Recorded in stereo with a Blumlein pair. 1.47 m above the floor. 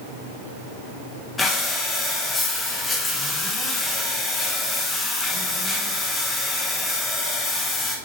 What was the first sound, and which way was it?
Breathing, 15° left.